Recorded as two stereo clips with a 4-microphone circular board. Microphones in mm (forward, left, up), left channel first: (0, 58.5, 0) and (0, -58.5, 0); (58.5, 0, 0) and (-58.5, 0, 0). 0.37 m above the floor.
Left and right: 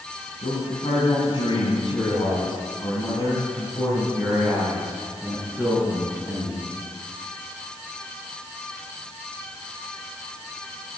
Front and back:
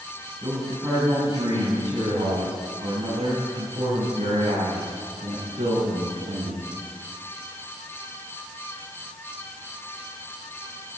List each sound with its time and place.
0.4 s a man speaking: 115° left, 3 m; by 6.7 s 175° right, 4 m